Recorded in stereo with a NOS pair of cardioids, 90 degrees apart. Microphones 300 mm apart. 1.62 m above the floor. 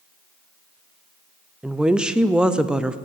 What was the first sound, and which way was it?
A woman speaking, 5° right.